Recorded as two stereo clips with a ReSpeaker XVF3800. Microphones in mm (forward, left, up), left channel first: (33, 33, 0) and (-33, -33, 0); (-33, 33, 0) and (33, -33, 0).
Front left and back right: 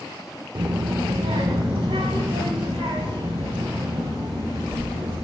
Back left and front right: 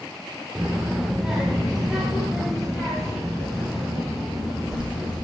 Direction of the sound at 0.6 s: 120° right.